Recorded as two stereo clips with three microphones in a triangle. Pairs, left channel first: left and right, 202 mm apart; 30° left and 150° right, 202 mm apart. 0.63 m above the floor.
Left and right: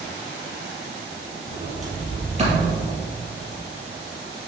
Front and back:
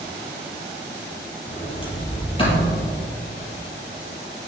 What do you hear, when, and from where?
1.5 s a sliding door: 35° right, 4 m